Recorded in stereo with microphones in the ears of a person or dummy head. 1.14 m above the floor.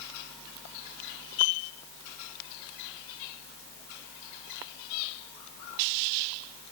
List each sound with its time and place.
Only background noise.